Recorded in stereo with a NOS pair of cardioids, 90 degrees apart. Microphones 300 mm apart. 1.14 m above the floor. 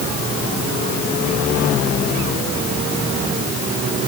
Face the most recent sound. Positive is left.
No sound to turn to.